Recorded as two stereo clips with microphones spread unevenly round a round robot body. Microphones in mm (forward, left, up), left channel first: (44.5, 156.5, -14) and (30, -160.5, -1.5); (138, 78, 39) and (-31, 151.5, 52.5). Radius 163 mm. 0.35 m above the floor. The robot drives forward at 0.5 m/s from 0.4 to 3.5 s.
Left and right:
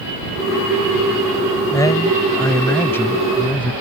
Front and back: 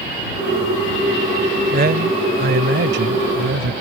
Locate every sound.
1.7 s a man speaking: 160° left; by 3.7 s 170° left